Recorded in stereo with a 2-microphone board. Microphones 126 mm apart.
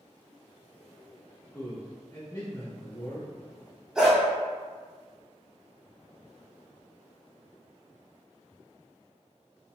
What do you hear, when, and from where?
1.5 s a man speaking: 25° left (ahead or behind), 1.1 m
4.0 s a dog barking: 5° right (ahead or behind), 1.1 m